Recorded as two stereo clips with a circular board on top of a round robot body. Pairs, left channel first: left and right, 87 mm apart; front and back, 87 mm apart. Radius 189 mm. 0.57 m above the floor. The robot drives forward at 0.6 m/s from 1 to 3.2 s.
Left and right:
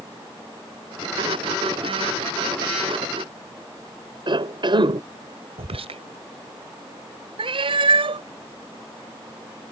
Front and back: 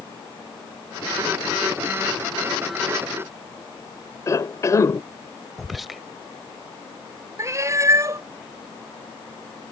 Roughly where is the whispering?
Right.